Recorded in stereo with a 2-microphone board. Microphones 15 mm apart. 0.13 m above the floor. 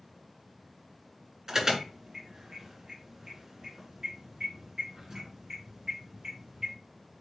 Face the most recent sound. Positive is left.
turn(degrees=-30)  # may be behind; listen again after turning